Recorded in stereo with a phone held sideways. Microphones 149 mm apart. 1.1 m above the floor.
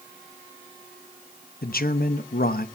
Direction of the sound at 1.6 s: 85° left.